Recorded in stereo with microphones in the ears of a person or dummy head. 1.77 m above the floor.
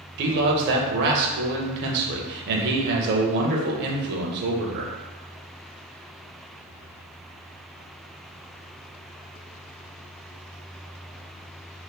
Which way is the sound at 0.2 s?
55° right (ahead or behind).